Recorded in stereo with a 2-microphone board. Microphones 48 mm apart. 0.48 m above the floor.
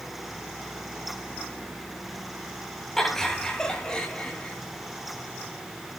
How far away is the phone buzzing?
No phone buzzing in this recording.